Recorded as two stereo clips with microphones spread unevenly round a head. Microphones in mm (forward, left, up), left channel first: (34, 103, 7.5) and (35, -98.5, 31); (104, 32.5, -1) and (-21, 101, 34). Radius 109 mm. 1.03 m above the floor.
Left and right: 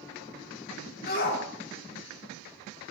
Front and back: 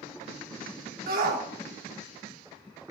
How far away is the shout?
About 2 m.